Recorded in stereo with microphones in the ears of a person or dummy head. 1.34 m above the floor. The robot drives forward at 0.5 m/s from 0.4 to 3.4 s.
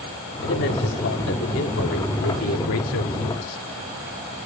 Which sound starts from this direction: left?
A man speaking, at 0.4 s.